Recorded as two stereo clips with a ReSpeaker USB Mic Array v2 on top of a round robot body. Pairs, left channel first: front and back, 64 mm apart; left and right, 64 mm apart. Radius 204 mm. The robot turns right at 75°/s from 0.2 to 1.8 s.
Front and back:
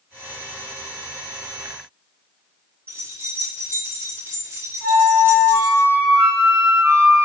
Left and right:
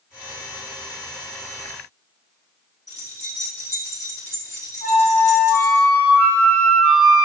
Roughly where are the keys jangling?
Behind left.